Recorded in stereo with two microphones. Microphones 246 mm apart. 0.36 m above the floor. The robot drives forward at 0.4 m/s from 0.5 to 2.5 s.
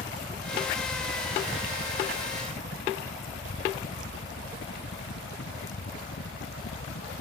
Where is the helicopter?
35° left (ahead or behind); by 7.2 s 65° left (ahead or behind).